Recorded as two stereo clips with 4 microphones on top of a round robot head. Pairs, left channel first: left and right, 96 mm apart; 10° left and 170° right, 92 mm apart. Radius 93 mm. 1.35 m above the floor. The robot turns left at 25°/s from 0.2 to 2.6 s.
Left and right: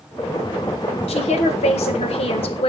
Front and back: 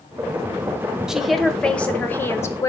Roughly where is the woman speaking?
Left.